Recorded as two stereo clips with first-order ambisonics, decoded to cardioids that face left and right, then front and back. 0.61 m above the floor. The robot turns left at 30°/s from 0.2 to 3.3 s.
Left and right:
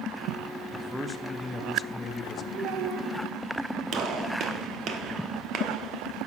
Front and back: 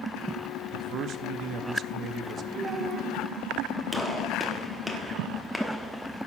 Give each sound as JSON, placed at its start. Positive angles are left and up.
{"t": 0.7, "sound": "a man speaking", "azimuth_deg": -170, "distance_m": 0.7}
{"t": 2.5, "sound": "a child speaking", "azimuth_deg": -110, "distance_m": 1.3}
{"t": 3.9, "sound": "a gunshot", "azimuth_deg": -80, "distance_m": 1.0}